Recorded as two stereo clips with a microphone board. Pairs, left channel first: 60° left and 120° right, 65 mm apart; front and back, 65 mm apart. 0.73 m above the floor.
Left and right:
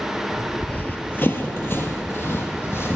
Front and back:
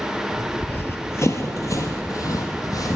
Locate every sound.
0.6 s running footsteps: 20° left, 0.8 m; by 3.0 s 10° left, 1.7 m